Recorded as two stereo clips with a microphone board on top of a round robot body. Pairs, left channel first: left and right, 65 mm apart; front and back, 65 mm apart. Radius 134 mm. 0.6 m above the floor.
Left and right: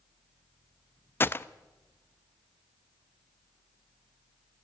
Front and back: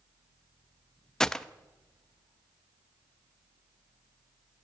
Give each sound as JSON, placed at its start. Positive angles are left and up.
{"t": 1.2, "sound": "a gunshot", "azimuth_deg": 75, "distance_m": 0.7}